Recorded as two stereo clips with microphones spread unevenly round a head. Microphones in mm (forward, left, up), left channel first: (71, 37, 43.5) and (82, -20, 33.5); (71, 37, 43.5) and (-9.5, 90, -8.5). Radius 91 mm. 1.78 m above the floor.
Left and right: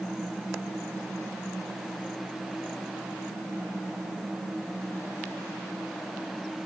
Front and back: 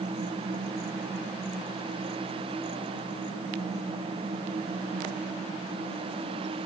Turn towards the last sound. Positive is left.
No sound to turn to.